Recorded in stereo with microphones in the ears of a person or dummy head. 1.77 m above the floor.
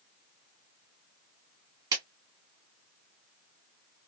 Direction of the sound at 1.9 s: 20° right (ahead or behind).